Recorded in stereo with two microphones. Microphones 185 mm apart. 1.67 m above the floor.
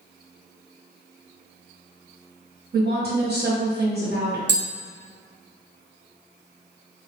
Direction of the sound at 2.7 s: 60° right (ahead or behind).